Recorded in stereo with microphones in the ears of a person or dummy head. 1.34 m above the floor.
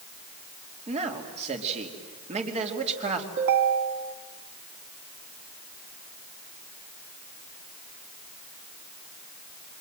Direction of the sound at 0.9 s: 40° right (ahead or behind).